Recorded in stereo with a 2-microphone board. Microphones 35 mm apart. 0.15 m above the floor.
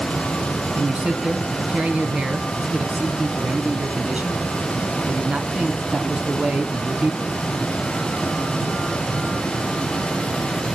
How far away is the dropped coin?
I don't hear a dropped coin.